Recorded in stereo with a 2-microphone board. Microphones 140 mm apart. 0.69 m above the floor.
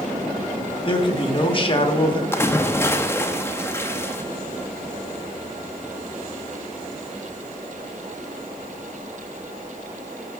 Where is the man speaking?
35° left (ahead or behind), 1.2 m.